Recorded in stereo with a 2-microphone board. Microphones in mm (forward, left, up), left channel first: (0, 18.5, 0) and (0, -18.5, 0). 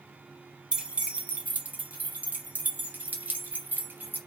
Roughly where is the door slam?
I don't hear a door slam.